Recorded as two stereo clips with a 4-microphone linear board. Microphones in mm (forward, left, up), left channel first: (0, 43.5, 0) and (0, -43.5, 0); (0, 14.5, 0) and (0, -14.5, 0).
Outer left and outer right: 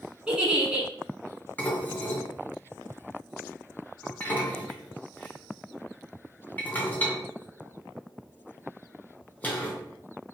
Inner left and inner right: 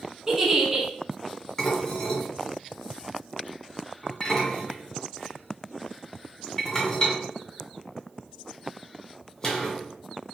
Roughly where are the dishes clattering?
Centre.